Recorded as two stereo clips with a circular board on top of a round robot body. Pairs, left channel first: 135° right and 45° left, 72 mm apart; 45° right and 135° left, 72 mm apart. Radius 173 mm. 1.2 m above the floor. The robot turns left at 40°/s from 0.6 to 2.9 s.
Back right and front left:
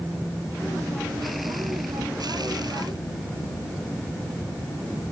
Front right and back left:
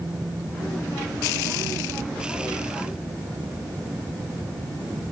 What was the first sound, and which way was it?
Only background noise.